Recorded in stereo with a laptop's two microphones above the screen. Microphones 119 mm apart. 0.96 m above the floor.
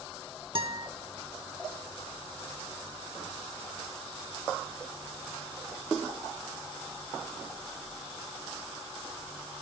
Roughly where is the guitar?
Right.